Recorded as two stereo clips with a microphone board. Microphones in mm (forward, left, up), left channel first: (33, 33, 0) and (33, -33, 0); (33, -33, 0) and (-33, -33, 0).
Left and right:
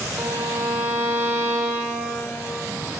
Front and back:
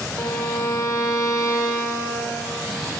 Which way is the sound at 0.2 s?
35° right.